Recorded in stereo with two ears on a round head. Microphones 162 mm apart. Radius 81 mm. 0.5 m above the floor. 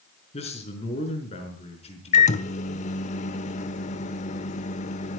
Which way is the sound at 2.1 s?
40° left (ahead or behind).